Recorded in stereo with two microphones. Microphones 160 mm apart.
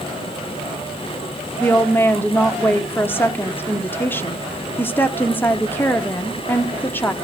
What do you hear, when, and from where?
1.6 s a woman speaking: 15° left (ahead or behind), 0.9 m